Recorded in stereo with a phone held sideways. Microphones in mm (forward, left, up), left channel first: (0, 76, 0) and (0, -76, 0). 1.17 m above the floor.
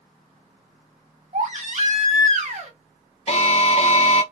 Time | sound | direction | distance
1.3 | a baby crying | 50° right (ahead or behind) | 1.4 m
3.3 | an alarm | 45° left (ahead or behind) | 0.6 m